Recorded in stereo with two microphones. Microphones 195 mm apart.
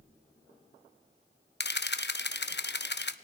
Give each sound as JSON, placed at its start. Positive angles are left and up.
{"t": 1.6, "sound": "a camera shutter", "side_deg": 60, "distance_m": 0.6}